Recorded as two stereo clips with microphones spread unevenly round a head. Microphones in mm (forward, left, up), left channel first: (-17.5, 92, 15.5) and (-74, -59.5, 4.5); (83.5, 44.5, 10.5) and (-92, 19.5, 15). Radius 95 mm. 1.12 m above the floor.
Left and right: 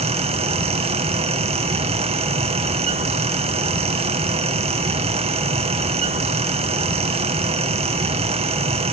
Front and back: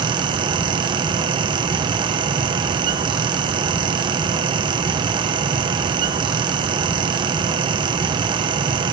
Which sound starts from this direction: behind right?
A fan, at 0.0 s.